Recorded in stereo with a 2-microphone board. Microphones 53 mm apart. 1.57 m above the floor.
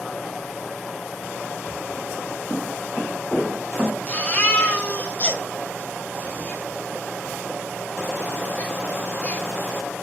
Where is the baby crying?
25° left (ahead or behind), 1.3 m.